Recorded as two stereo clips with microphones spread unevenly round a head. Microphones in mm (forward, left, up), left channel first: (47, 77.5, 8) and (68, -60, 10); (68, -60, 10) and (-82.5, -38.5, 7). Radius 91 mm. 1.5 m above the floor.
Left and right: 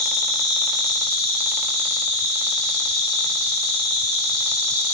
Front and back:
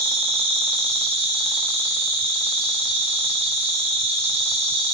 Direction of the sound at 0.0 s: 150° left.